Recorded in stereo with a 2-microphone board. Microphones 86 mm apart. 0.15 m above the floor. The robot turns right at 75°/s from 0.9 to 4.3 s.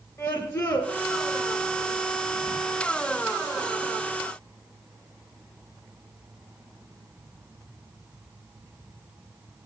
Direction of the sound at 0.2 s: 40° left (ahead or behind).